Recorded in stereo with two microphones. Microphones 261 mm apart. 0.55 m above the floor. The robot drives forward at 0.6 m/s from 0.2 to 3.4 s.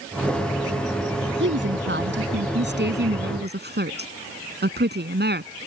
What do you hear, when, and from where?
1.4 s a woman speaking: 45° right (ahead or behind); by 5.5 s 40° right (ahead or behind)